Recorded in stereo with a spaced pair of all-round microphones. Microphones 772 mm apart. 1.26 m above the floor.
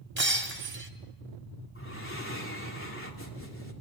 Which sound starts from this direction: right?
Breaking glass, at 0.2 s.